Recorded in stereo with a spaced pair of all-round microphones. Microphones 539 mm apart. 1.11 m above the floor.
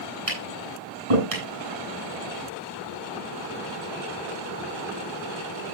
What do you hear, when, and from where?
0.3 s tapping: 85° right, 8 m